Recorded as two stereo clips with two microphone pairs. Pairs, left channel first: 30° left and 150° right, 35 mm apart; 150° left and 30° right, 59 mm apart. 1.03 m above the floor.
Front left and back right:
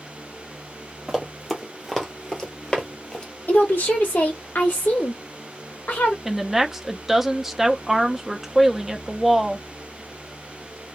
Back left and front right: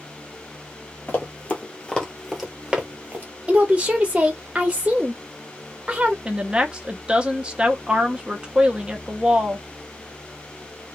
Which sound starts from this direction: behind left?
Running footsteps, at 1.1 s.